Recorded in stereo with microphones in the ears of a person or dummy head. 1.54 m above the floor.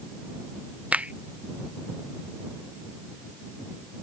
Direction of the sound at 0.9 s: 5° right (ahead or behind).